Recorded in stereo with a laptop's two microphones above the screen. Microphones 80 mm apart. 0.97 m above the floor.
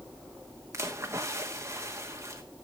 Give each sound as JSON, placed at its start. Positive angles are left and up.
{"t": 0.7, "sound": "a splash", "side_deg": -40, "distance_m": 1.2}